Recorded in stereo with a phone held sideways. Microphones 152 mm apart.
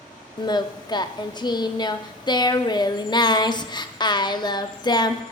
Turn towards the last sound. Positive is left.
turn(degrees=30)  # may be behind; listen again after turning